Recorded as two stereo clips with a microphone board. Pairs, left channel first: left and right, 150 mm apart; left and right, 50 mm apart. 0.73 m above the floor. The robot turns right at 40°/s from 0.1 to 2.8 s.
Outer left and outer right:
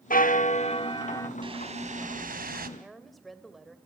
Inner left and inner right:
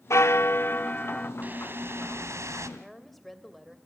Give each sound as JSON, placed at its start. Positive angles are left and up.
{"t": 0.1, "sound": "a bell", "azimuth_deg": 110, "distance_m": 0.7}
{"t": 1.4, "sound": "a whoosh", "azimuth_deg": -145, "distance_m": 1.5}
{"t": 2.8, "sound": "a woman speaking", "side_deg": 0, "distance_m": 2.5}